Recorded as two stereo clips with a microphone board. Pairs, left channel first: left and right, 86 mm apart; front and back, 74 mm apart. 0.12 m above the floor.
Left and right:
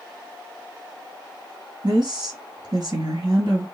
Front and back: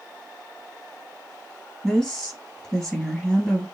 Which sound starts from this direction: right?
A woman speaking, at 1.8 s.